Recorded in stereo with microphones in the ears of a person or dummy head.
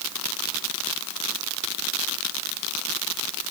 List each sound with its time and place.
Only background noise.